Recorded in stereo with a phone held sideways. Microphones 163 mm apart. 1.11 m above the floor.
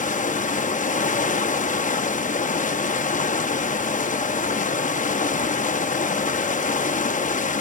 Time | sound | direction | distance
0.0 | running water | 45° left (ahead or behind) | 0.7 m